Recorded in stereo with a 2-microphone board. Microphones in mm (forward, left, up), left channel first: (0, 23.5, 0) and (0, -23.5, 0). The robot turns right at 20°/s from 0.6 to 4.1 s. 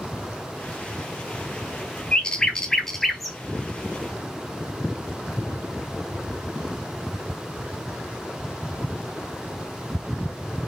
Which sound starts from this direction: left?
A bird, at 2.1 s.